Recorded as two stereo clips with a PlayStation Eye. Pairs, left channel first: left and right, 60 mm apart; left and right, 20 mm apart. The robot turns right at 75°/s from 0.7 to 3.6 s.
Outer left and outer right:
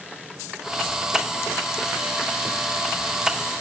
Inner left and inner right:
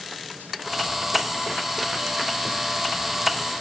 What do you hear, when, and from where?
Only background noise.